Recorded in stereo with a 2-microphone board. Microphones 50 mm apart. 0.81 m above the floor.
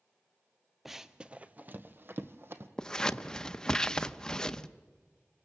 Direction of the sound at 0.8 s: Centre (ahead or behind).